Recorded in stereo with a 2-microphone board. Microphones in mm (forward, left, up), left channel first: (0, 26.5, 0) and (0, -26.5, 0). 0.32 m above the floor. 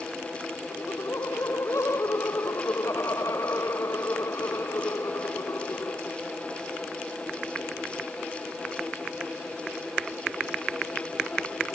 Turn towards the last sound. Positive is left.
turn(degrees=70)  # may be behind; listen again after turning